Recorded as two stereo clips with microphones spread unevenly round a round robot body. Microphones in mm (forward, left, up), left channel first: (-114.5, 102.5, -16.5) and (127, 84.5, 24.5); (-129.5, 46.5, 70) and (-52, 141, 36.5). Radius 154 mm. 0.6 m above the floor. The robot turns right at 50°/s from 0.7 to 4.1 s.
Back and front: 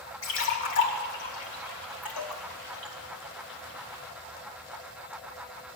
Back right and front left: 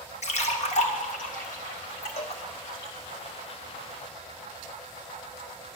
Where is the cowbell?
140° right, 1.5 m; by 2.4 s 125° right, 1.5 m.